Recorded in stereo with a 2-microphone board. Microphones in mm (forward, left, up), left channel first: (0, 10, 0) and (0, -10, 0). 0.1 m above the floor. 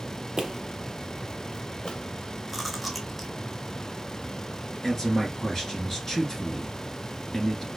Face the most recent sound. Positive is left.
turn(degrees=20)  # may be behind; listen again after turning